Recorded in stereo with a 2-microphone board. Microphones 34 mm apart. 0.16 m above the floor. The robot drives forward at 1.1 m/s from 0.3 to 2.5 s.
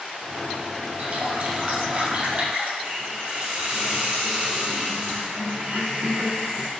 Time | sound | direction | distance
1.0 | a running tap | 60° right (ahead or behind) | 2 m
2.8 | a hiss | 45° right (ahead or behind) | 4 m